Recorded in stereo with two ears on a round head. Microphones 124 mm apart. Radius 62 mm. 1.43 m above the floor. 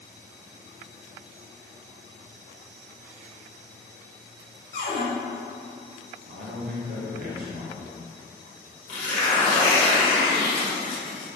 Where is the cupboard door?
65° left (ahead or behind), 1.7 m.